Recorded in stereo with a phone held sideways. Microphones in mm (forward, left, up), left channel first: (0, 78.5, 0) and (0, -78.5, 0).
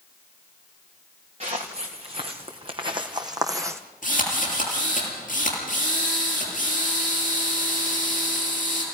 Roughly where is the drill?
Left.